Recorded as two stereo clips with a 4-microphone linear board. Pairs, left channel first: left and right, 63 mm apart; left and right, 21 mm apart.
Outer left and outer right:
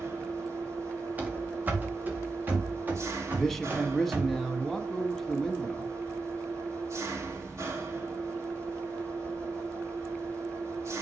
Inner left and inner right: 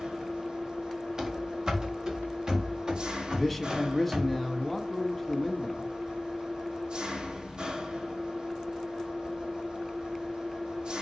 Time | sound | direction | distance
0.0 | an engine running | 50° right (ahead or behind) | 2.5 m
1.2 | running footsteps | 25° right (ahead or behind) | 2.5 m
3.3 | a man speaking | 5° left (ahead or behind) | 1.7 m